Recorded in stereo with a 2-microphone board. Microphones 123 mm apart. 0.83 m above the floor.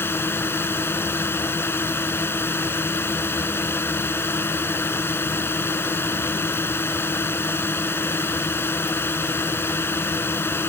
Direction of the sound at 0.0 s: 20° left (ahead or behind).